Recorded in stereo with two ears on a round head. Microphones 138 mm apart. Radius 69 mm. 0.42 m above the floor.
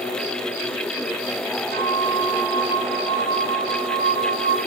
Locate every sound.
1.7 s a flute: 75° right (ahead or behind), 6.5 m